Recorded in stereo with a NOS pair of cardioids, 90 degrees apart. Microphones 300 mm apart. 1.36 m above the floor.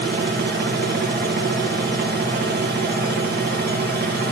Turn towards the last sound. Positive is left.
turn(degrees=-35)